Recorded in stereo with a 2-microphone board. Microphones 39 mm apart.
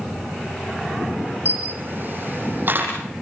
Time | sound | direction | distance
1.4 | a camera shutter | 50° right (ahead or behind) | 7 m